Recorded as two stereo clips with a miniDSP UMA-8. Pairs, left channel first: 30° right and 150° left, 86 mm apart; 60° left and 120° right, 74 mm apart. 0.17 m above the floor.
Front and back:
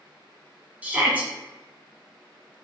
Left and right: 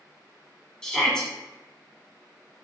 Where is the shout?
120° left, 1.2 m.